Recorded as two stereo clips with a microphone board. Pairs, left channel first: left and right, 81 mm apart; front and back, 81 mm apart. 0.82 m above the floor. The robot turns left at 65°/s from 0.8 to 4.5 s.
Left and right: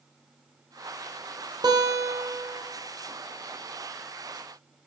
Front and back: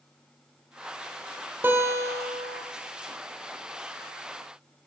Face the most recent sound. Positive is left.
turn(degrees=55)